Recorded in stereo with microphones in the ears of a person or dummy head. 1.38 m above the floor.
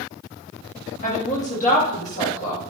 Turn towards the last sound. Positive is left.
turn(degrees=50)  # may be behind; listen again after turning